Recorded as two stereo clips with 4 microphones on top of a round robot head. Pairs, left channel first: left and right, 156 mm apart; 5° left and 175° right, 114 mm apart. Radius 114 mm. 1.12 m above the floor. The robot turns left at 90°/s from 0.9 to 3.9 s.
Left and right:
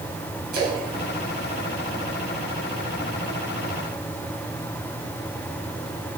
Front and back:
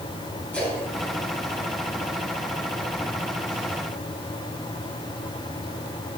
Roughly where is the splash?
Right.